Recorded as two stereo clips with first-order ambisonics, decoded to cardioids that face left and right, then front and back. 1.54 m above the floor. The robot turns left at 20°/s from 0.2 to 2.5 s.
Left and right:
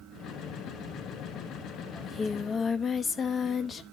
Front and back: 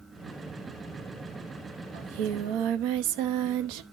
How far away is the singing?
About 0.7 m.